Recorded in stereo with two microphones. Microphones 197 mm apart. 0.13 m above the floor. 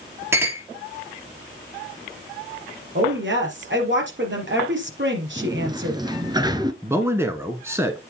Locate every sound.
0.3 s a clink: 10° right (ahead or behind), 2 m
3.0 s a woman speaking: 60° right (ahead or behind), 3.5 m
5.4 s a sliding door: 20° right (ahead or behind), 0.9 m
6.8 s a man speaking: 10° right (ahead or behind), 1.2 m